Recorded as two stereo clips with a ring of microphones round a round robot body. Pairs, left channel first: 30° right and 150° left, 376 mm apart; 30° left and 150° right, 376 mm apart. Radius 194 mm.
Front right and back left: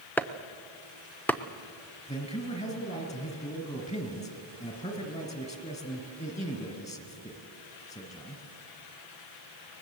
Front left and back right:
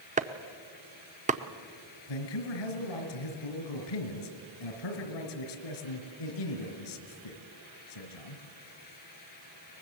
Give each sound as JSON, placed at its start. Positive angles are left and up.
{"t": 0.2, "sound": "chopping", "azimuth_deg": -110, "distance_m": 0.8}
{"t": 2.1, "sound": "a man speaking", "azimuth_deg": 45, "distance_m": 3.0}